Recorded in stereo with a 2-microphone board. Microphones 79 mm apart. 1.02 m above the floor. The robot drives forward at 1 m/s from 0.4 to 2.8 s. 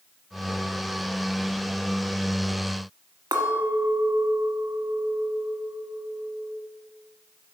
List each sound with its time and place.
3.3 s a clink: 60° right (ahead or behind), 1.2 m